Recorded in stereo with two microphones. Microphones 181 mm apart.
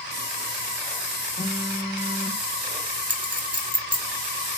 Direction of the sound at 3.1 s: 45° left (ahead or behind).